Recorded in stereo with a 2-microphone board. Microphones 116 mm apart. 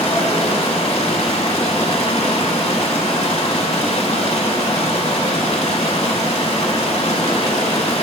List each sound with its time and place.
0.0 s running water: 65° left (ahead or behind), 0.9 m